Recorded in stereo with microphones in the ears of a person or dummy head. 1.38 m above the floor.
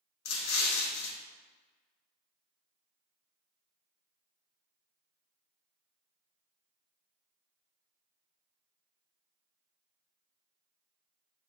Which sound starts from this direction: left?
An explosion, at 0.2 s.